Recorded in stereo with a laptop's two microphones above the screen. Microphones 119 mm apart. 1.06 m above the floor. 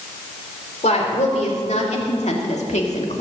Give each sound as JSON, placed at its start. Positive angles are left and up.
{"t": 0.8, "sound": "a woman speaking", "side_deg": 75, "distance_m": 3.0}